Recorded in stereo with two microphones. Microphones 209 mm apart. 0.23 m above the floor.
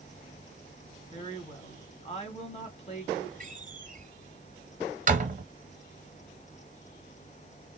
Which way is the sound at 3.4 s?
40° right (ahead or behind).